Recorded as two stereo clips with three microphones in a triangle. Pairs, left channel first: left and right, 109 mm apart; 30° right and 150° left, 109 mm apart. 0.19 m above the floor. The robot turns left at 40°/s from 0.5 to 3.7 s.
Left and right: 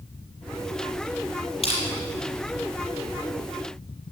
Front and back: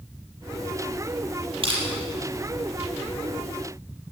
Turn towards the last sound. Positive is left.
turn(degrees=30)